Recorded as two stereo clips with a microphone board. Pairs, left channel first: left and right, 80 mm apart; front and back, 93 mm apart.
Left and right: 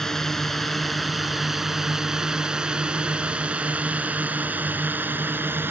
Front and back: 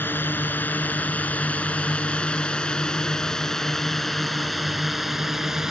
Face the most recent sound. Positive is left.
turn(degrees=-100)